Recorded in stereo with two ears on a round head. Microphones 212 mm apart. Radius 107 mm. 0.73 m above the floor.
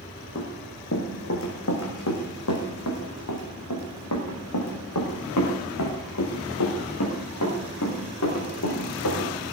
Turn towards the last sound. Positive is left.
turn(degrees=70)  # may be behind; listen again after turning